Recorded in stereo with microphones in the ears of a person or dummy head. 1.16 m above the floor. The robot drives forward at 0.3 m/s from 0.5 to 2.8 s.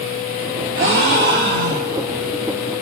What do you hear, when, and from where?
0.8 s a gasp: 75° right (ahead or behind), 1.1 m; by 2.1 s 55° right (ahead or behind), 1.3 m